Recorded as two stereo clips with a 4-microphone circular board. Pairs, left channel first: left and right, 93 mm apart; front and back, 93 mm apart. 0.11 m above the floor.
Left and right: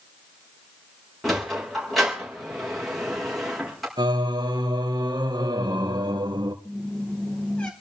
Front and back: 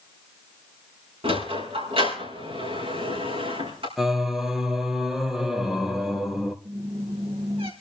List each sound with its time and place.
1.2 s a sliding door: straight behind, 5.5 m
4.0 s singing: 95° right, 1.6 m
6.7 s a squeak: 170° left, 2.5 m